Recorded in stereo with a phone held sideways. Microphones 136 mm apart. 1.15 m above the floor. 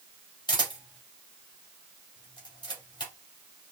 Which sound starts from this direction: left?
A camera shutter, at 0.5 s.